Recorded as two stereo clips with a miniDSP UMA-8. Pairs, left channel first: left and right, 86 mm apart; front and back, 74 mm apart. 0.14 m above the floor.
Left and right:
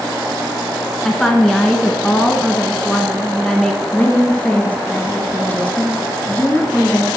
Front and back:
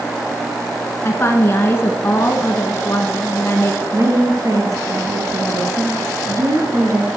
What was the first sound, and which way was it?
A woman speaking, 10° left.